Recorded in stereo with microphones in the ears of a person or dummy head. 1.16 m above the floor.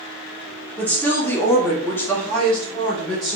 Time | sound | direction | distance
0.8 | a woman speaking | 10° left (ahead or behind) | 1.0 m